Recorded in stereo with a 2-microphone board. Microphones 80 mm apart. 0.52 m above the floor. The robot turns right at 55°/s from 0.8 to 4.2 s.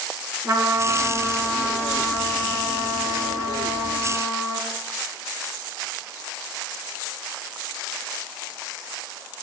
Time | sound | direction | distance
0.4 | a trumpet | 40° right | 2.5 m